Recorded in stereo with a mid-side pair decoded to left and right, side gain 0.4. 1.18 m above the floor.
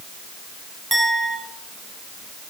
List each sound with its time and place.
0.9 s a clink: 20° right, 5 m